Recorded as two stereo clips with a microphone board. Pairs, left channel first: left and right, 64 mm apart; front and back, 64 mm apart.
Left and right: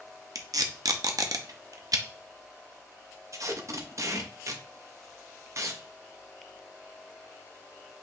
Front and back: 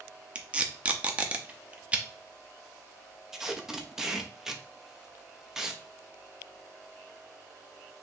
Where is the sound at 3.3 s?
100° right, 0.7 m.